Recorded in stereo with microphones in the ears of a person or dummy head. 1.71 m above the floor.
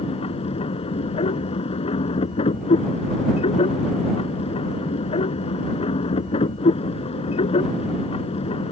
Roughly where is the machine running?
Left.